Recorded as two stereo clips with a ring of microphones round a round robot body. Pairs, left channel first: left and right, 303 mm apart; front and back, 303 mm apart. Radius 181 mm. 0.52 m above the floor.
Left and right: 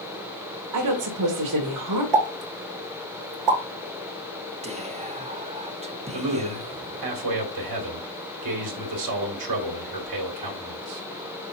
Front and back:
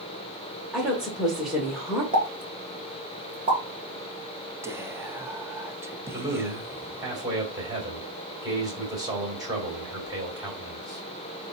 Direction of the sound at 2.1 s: 105° right.